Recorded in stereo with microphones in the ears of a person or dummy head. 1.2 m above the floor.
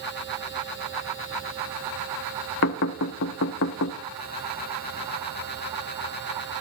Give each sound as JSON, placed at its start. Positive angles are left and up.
{"t": 2.6, "sound": "knocking", "side_deg": 60, "distance_m": 0.8}